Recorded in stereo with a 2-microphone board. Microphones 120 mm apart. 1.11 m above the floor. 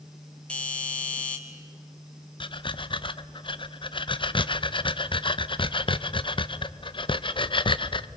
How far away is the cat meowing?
I don't hear a cat meowing.